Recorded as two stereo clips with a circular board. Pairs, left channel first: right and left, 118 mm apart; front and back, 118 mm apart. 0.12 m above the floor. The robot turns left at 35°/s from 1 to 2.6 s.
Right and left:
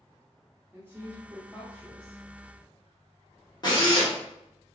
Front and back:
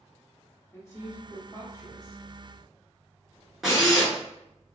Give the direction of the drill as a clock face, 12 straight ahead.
3 o'clock.